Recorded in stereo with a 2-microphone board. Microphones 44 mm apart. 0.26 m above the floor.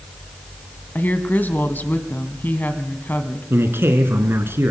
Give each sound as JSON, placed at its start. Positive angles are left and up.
{"t": 0.9, "sound": "a woman speaking", "side_deg": 50, "distance_m": 1.8}
{"t": 3.5, "sound": "a man speaking", "side_deg": -70, "distance_m": 2.5}